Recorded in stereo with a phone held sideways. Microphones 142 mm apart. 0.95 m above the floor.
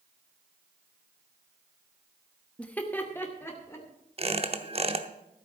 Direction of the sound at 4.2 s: 40° right (ahead or behind).